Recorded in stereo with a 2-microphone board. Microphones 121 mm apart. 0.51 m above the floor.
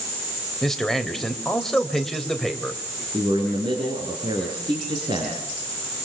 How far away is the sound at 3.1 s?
About 6 m.